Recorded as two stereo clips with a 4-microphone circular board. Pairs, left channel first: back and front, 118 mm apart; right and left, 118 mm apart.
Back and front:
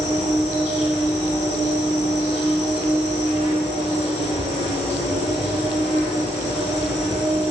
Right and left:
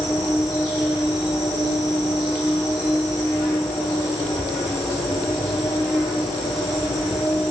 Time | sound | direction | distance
0.0 | an insect | 5° left | 1.4 m